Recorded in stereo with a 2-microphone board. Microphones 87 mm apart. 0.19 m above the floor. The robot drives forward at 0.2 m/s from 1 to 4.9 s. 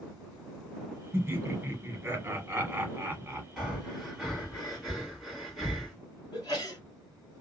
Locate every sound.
1.1 s laughter: 30° right (ahead or behind), 1.1 m; by 3.5 s 25° right (ahead or behind), 1.2 m
3.6 s breathing: centre (ahead or behind), 1.8 m
6.3 s a sneeze: 50° left (ahead or behind), 1.9 m